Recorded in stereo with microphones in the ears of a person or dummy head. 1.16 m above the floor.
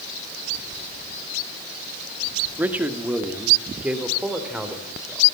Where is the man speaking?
10° right (ahead or behind), 1.8 m; by 5.2 s 5° right (ahead or behind), 3.5 m.